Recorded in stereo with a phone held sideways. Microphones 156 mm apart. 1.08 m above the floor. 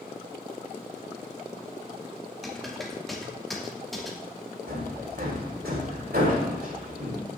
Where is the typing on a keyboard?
Centre (ahead or behind), 2.5 m.